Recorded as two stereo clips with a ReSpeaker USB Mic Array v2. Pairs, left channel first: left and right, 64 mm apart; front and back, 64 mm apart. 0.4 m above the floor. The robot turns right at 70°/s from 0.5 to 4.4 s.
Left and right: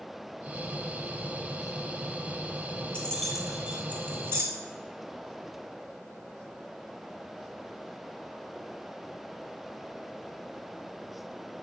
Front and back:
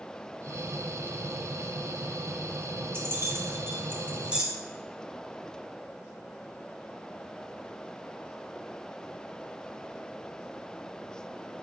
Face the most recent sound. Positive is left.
turn(degrees=-105)